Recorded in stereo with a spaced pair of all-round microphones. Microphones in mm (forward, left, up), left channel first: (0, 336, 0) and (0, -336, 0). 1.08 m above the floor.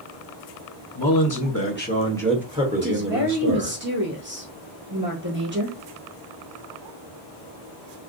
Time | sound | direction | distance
0.9 | a man speaking | 35° left (ahead or behind) | 1.4 m
2.8 | a woman speaking | 15° right (ahead or behind) | 1.8 m